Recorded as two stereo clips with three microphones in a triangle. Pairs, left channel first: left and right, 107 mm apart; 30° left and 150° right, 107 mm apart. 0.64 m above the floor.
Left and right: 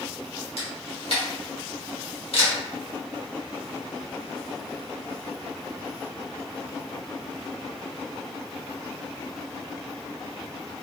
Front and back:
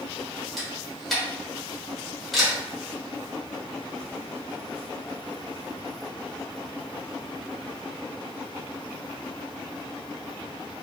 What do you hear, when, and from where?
0.6 s a camera shutter: 120° left, 1.1 m